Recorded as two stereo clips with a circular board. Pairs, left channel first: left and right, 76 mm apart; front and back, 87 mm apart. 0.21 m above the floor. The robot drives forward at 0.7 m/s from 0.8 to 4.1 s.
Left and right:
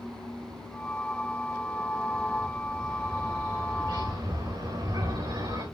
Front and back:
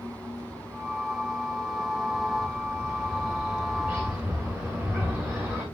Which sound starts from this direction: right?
A bird, at 2.1 s.